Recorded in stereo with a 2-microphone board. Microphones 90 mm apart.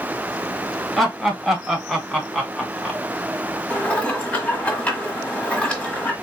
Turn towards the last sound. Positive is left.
turn(degrees=15)  # may be behind; listen again after turning